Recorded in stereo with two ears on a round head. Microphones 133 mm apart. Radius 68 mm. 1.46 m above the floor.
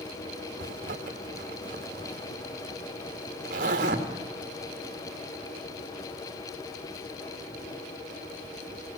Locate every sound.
0.6 s a zipper: 50° right (ahead or behind), 2 m